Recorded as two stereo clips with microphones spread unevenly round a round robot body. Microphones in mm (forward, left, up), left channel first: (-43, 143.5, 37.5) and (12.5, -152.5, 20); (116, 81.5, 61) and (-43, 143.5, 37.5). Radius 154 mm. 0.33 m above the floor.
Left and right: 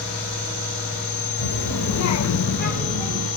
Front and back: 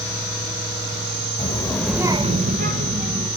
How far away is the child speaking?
About 1.1 m.